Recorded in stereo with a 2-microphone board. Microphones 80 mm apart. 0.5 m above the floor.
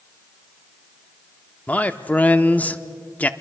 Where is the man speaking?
20° left (ahead or behind), 0.6 m.